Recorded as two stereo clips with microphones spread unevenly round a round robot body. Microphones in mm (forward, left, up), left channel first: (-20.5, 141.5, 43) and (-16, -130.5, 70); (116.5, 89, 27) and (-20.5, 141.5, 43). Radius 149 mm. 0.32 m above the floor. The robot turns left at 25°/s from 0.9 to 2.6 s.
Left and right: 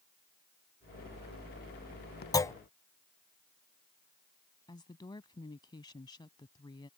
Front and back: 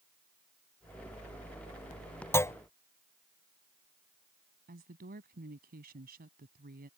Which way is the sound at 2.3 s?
30° left.